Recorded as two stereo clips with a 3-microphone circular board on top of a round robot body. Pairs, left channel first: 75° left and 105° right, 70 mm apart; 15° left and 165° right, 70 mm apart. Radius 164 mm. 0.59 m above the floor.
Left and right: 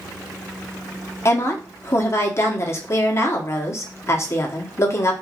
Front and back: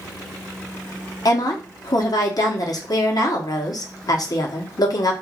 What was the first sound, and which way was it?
A woman speaking, 30° left.